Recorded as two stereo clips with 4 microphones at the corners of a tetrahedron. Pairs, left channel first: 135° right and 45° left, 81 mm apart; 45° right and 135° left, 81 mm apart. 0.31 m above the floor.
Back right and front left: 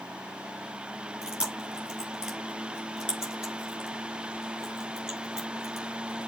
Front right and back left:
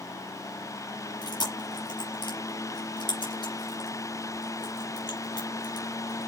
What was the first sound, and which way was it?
Chewing, 30° right.